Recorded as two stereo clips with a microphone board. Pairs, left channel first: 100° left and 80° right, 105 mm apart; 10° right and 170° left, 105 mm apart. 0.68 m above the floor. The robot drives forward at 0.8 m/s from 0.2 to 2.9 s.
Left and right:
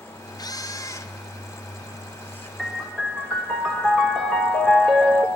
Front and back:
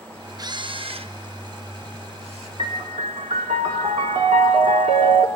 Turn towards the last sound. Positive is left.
turn(degrees=-175)